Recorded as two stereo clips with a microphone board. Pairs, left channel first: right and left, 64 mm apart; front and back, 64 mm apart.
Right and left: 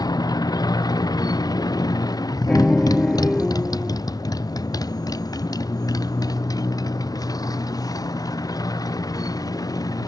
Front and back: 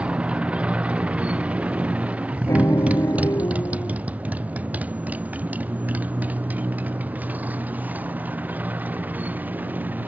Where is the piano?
10° right.